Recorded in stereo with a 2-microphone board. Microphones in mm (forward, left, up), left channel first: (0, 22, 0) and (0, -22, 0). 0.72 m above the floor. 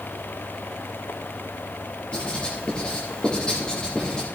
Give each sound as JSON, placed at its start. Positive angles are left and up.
{"t": 2.1, "sound": "writing", "side_deg": 20, "distance_m": 7.5}